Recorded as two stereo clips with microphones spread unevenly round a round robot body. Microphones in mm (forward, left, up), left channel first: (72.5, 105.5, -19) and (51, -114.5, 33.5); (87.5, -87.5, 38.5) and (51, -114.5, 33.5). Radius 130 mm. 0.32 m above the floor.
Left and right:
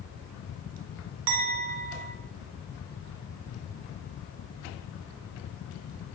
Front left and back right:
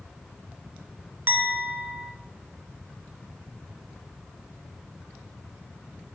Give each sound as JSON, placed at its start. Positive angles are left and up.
{"t": 1.3, "sound": "a clink", "azimuth_deg": -115, "distance_m": 1.1}